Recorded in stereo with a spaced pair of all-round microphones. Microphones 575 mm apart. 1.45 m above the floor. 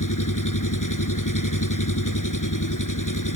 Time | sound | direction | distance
0.0 | an engine running | 30° left (ahead or behind) | ?